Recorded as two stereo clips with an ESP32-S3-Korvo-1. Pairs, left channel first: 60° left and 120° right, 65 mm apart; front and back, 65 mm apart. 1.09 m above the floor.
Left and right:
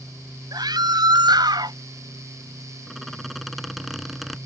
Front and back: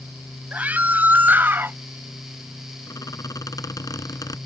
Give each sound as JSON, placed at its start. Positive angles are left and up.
{"t": 0.5, "sound": "a scream", "azimuth_deg": -115}
{"t": 2.9, "sound": "a squeak", "azimuth_deg": -30}